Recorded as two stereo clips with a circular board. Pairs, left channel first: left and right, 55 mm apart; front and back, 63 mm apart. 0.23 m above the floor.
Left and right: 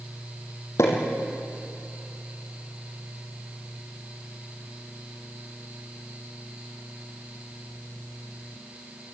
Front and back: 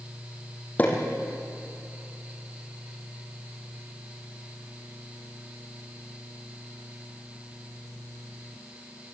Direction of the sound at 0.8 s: 65° left.